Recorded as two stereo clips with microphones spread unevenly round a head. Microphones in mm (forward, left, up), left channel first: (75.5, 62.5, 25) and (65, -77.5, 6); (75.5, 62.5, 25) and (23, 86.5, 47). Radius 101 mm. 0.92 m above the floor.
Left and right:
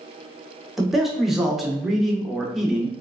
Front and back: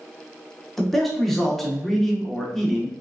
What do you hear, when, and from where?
0.8 s a man speaking: 25° right, 0.9 m